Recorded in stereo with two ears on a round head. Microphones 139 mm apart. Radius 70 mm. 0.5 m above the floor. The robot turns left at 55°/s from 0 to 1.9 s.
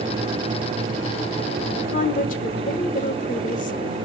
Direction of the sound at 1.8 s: 60° left (ahead or behind).